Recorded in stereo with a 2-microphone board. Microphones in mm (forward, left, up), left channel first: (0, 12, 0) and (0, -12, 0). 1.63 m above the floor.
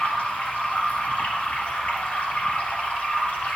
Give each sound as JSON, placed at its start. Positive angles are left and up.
{"t": 0.0, "sound": "running water", "side_deg": 70, "distance_m": 2.0}